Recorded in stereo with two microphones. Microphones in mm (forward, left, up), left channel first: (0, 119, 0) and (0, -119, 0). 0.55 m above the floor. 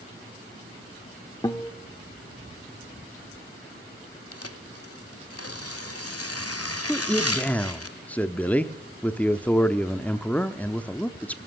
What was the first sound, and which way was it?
A guitar, 15° left (ahead or behind).